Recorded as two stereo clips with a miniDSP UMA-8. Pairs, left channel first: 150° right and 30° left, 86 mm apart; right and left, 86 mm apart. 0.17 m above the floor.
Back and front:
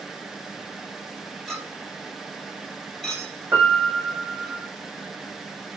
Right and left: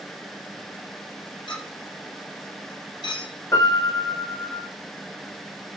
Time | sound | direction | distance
1.5 | a clink | 65° right | 3 m
3.5 | a piano | 35° right | 3 m